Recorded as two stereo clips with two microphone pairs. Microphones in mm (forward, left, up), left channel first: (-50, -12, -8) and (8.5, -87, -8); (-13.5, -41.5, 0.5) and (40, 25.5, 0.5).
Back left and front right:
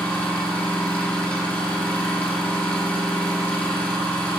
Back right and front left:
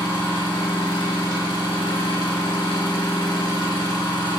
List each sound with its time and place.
0.0 s an engine running: 155° right, 2.5 m